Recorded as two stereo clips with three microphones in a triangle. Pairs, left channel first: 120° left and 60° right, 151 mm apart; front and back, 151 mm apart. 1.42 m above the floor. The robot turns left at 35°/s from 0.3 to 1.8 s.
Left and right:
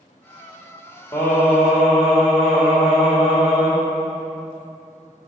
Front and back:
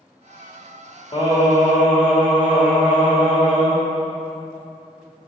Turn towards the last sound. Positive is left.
turn(degrees=25)